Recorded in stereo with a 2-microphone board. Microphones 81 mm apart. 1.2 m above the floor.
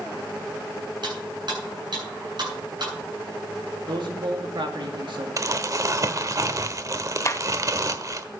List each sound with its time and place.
1.0 s cutlery clinking: 65° right (ahead or behind), 8.5 m
3.9 s a man speaking: 75° right (ahead or behind), 2 m
5.4 s crumpling: 40° right (ahead or behind), 1.2 m
7.2 s a clap: 35° left (ahead or behind), 0.8 m